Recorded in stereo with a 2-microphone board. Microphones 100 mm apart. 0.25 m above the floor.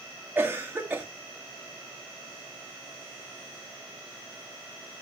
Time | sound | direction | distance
0.3 | a cough | 15° right (ahead or behind) | 1.7 m